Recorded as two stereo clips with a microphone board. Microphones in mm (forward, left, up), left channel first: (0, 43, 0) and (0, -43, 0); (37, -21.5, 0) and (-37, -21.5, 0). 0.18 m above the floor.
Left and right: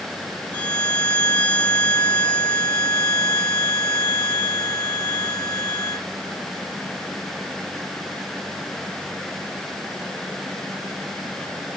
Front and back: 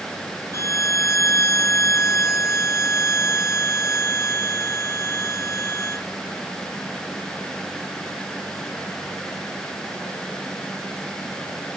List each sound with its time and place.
0.5 s a violin: 20° left, 0.8 m